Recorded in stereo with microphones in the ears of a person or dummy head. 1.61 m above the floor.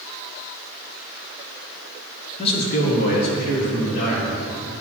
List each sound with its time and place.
2.4 s a man speaking: 30° left (ahead or behind), 1.3 m; by 4.8 s 70° left (ahead or behind), 4 m